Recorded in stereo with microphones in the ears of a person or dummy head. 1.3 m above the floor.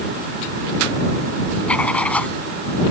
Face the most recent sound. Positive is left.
turn(degrees=5)  # may be behind; listen again after turning